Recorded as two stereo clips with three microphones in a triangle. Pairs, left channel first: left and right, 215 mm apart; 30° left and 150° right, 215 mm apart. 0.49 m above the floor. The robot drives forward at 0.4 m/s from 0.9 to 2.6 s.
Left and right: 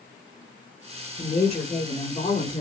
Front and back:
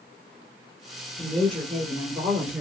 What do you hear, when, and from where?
1.2 s a woman speaking: 110° left, 1.4 m; by 2.6 s 140° left, 1.7 m